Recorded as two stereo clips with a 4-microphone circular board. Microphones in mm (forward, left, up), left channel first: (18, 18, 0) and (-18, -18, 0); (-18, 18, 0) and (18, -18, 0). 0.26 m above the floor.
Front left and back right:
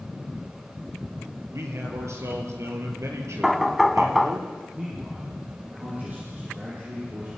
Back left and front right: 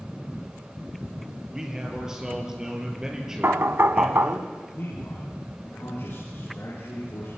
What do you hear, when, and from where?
1.5 s a man speaking: 120° right, 6 m
3.4 s knocking: 45° right, 1.1 m
4.7 s a man speaking: 175° left, 9.5 m